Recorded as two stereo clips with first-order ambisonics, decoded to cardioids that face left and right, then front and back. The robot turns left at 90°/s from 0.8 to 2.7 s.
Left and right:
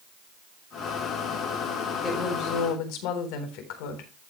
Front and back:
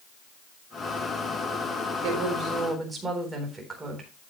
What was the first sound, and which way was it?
A woman speaking, 160° left.